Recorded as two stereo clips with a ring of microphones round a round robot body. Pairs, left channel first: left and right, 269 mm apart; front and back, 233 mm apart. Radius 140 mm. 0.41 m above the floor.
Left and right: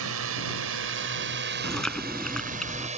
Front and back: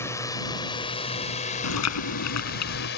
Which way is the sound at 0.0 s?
75° right.